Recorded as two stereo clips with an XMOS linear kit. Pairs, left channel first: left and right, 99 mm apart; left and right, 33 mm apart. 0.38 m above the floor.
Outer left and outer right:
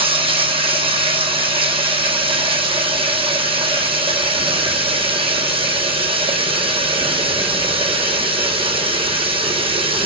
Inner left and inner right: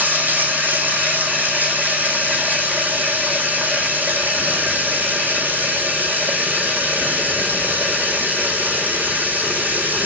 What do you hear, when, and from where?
0.0 s running water: 65° right (ahead or behind), 1.9 m